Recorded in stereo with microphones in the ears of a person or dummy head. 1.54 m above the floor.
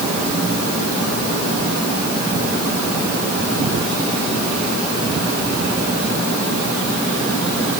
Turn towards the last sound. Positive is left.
No sound to turn to.